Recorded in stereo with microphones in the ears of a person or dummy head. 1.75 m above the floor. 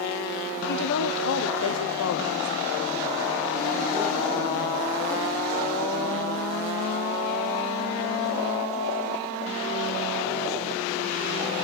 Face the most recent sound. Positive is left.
turn(degrees=10)  # may be behind; listen again after turning